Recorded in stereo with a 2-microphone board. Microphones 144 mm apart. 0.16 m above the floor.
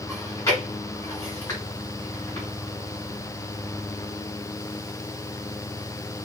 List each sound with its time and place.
0.1 s chewing: 20° left (ahead or behind), 1.8 m